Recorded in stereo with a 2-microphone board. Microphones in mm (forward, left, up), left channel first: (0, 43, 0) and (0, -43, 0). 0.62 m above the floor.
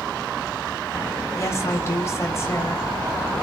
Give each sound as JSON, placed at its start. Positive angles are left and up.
{"t": 1.3, "sound": "a woman speaking", "side_deg": 35, "distance_m": 3.5}